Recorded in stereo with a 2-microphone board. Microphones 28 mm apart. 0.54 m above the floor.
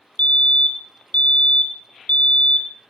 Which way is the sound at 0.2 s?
55° left (ahead or behind).